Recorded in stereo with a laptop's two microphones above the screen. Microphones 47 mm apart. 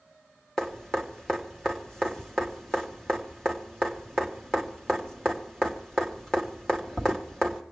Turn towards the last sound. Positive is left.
turn(degrees=10)  # may be behind; listen again after turning